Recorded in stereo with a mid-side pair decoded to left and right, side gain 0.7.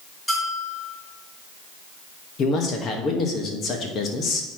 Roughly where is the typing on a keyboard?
No typing on a keyboard in this recording.